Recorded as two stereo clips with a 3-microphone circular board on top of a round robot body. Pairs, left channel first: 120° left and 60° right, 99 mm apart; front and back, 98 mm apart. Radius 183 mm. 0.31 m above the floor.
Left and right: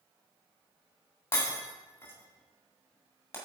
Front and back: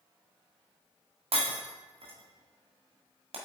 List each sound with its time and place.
1.3 s breaking glass: 175° right, 1.8 m